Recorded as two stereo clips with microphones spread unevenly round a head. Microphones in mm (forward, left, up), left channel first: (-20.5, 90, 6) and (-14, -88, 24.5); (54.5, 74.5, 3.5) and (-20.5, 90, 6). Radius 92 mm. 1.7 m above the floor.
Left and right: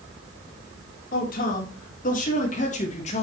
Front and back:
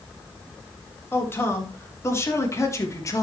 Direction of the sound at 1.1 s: 50° left.